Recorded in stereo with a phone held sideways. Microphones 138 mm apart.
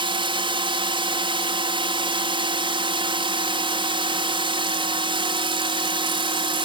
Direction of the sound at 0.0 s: 40° right (ahead or behind).